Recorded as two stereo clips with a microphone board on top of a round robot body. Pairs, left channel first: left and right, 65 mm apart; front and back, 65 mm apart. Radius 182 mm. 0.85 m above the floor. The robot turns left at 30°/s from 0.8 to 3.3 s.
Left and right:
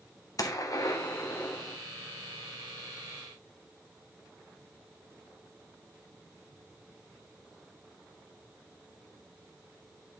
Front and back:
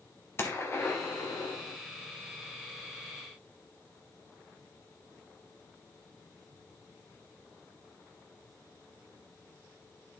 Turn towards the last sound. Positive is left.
turn(degrees=-20)